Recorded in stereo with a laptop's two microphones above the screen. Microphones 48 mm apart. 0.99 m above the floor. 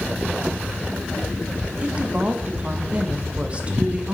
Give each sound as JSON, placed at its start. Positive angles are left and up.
{"t": 1.8, "sound": "a woman speaking", "side_deg": -25, "distance_m": 1.4}